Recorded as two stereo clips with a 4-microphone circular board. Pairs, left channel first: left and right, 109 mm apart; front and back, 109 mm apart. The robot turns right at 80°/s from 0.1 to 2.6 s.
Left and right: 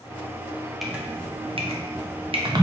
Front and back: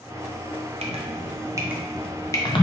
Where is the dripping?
Straight behind, 0.6 m; by 2.6 s 40° right, 0.6 m.